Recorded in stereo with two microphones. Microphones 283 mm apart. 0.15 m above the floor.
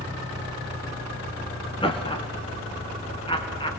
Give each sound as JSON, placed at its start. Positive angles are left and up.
{"t": 1.8, "sound": "laughter", "side_deg": 20, "distance_m": 1.3}